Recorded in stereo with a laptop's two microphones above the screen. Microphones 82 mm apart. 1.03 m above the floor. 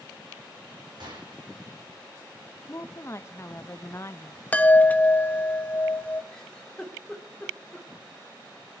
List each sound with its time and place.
1.0 s a gunshot: 65° right (ahead or behind), 4.5 m
2.7 s a woman speaking: 35° left (ahead or behind), 0.8 m
4.5 s a chime: 20° left (ahead or behind), 0.9 m
6.3 s a giggle: 10° left (ahead or behind), 2.5 m